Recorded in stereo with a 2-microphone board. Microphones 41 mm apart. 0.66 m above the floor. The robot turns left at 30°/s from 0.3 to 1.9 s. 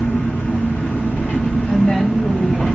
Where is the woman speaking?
30° left (ahead or behind), 3 m; by 2.6 s 25° left (ahead or behind), 3 m.